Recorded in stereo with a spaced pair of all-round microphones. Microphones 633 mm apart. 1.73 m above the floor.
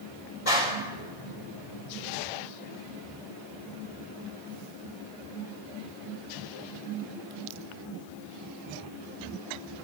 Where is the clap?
60° left (ahead or behind), 7 m.